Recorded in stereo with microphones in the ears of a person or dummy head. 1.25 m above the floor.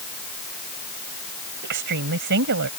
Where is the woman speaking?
65° right (ahead or behind); by 2.7 s 70° right (ahead or behind).